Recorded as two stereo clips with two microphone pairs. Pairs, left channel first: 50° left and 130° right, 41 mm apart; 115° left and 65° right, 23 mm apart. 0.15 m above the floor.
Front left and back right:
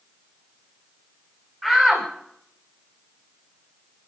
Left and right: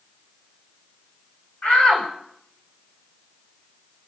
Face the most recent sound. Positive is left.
turn(degrees=150)